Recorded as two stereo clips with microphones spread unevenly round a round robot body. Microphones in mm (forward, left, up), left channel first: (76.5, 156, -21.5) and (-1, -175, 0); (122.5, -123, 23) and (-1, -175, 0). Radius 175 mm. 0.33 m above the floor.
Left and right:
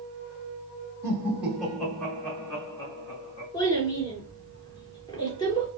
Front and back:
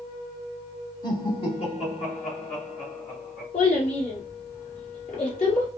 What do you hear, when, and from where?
1.0 s laughter: 25° right, 1.2 m; by 3.4 s straight ahead, 2.5 m
3.5 s a child speaking: straight ahead, 2.5 m